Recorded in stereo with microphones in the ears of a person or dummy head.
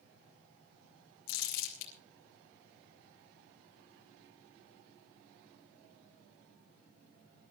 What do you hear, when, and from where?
1.3 s crumpling: 70° left (ahead or behind), 3.5 m